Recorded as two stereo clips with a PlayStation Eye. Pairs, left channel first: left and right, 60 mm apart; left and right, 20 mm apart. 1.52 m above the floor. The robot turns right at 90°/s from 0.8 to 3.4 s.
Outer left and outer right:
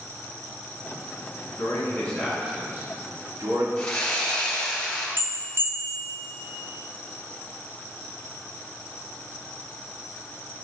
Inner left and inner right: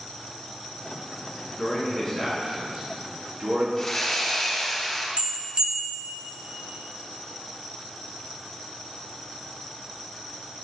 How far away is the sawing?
About 2.5 m.